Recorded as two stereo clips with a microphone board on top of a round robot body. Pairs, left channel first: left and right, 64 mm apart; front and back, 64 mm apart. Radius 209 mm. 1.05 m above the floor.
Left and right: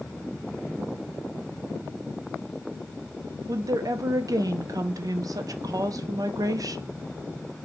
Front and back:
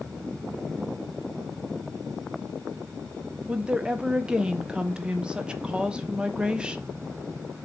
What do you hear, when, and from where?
3.5 s a woman speaking: 105° right, 0.6 m